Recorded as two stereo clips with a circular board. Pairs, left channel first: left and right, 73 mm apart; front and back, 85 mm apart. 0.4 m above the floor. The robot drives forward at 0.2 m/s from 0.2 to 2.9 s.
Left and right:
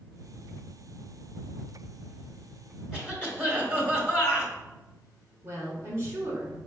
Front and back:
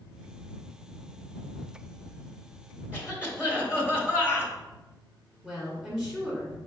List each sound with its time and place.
2.9 s a cough: 140° right, 1.3 m
5.4 s a woman speaking: 105° right, 1.1 m